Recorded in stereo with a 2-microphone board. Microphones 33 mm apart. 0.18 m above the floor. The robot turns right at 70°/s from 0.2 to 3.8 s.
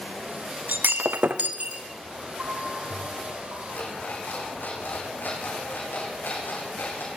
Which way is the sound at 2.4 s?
125° right.